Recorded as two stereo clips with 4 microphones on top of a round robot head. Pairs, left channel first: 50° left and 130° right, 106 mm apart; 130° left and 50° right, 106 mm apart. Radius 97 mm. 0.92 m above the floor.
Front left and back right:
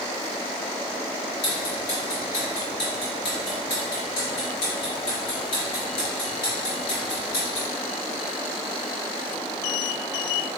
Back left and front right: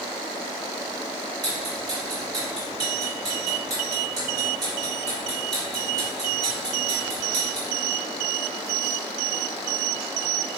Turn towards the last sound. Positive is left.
turn(degrees=5)